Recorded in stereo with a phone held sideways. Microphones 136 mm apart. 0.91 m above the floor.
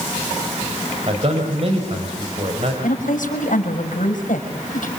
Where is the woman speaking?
80° left, 5 m.